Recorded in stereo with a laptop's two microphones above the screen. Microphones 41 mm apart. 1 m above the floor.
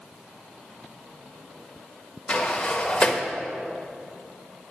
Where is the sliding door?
25° left (ahead or behind), 1.1 m.